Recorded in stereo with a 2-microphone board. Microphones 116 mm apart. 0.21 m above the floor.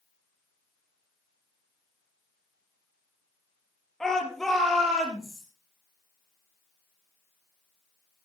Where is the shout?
5° left (ahead or behind), 4.5 m; by 5.4 s centre (ahead or behind), 6.5 m.